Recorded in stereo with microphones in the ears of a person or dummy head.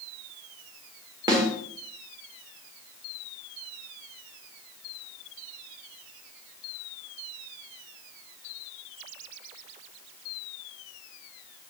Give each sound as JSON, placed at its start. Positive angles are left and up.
{"t": 1.3, "sound": "a snare drum", "side_deg": -20, "distance_m": 1.7}